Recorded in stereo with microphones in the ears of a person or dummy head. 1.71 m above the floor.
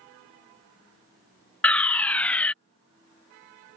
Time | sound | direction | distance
1.6 | a fire alarm | 5° left (ahead or behind) | ?